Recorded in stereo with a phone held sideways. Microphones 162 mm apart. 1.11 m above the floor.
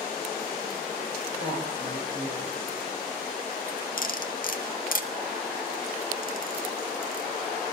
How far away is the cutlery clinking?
About 1.1 m.